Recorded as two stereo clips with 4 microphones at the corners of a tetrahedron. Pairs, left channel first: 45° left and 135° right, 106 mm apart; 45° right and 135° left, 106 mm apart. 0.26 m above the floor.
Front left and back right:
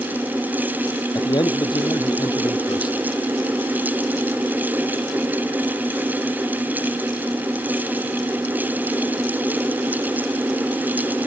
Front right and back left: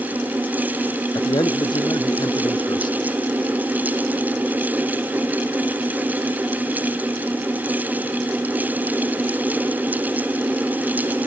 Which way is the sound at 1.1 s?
Straight ahead.